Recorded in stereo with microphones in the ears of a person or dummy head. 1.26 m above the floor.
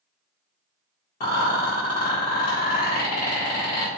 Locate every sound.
1.2 s a rattle: 40° left (ahead or behind), 1.1 m